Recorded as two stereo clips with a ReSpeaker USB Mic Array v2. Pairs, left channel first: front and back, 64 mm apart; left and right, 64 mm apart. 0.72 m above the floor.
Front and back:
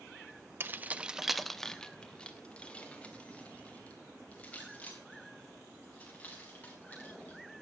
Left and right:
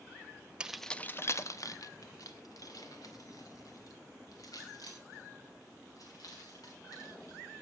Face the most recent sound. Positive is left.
turn(degrees=65)